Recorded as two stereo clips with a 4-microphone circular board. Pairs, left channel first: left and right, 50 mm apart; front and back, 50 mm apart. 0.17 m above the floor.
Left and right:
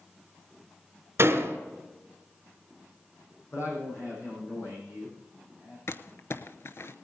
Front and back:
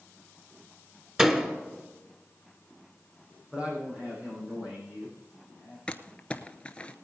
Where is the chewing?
I don't hear chewing.